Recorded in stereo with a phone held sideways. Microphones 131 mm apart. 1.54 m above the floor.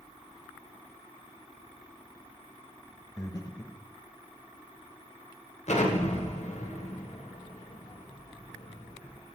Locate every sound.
3.2 s breathing: 25° left (ahead or behind), 0.9 m
5.7 s an explosion: 60° left (ahead or behind), 1.4 m